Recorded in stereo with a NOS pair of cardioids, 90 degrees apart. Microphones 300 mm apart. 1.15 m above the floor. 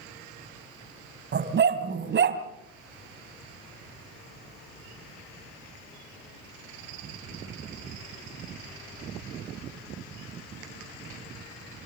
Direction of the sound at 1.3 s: 40° right.